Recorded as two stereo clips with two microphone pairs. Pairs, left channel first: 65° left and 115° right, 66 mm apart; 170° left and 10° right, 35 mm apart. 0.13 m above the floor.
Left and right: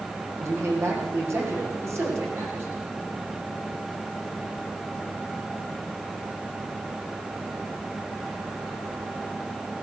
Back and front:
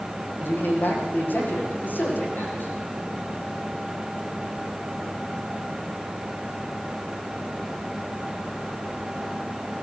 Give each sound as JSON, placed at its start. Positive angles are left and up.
{"t": 0.4, "sound": "a man speaking", "azimuth_deg": -160, "distance_m": 9.0}